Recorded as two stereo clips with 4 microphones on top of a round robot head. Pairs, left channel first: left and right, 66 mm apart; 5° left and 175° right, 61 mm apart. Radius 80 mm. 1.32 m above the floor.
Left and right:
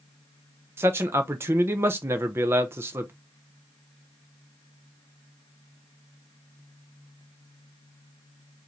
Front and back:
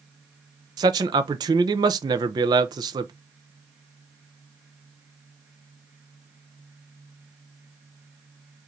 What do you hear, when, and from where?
0.8 s a man speaking: 155° right, 0.6 m